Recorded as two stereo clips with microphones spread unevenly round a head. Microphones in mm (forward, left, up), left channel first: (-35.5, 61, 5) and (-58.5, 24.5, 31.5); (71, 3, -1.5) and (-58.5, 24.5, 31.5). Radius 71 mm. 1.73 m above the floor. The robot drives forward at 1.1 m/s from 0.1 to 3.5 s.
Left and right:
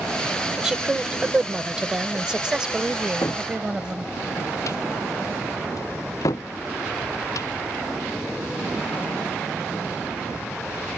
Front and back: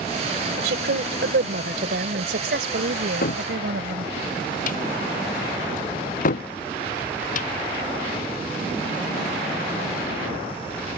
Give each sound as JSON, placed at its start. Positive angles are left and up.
{"t": 0.6, "sound": "a woman speaking", "azimuth_deg": 170}
{"t": 3.2, "sound": "a cupboard door", "azimuth_deg": 15}